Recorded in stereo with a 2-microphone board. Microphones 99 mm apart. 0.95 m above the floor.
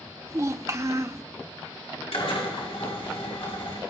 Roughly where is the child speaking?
Right.